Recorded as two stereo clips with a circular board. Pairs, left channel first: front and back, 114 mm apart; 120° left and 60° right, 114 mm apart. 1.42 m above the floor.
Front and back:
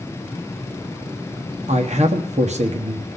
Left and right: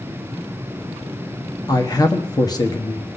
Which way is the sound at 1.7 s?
175° left.